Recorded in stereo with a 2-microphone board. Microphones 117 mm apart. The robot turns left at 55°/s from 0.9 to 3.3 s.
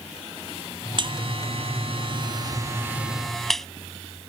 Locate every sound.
1.0 s a buzzer: 45° right (ahead or behind); by 3.7 s 5° left (ahead or behind)